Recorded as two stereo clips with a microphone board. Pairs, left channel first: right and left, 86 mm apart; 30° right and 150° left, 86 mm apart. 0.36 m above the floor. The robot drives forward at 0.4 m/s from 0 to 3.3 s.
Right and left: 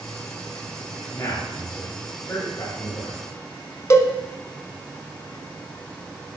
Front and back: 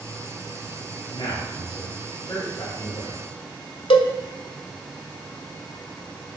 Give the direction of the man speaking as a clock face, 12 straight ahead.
1 o'clock.